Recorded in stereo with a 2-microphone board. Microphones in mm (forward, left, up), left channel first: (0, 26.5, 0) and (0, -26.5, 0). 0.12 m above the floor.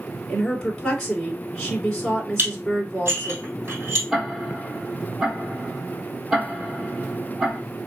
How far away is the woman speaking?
About 1.8 m.